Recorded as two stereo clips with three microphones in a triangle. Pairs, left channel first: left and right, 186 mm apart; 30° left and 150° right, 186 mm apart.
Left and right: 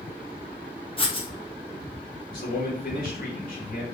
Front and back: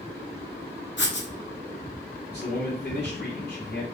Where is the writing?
30° left, 0.7 m.